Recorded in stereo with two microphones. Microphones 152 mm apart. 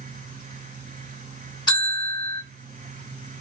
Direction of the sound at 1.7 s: 30° left (ahead or behind).